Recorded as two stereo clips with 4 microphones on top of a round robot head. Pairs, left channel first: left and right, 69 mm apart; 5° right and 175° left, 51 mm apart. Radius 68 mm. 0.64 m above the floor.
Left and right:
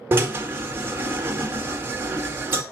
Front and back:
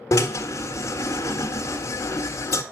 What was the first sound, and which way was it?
A drill, 30° right.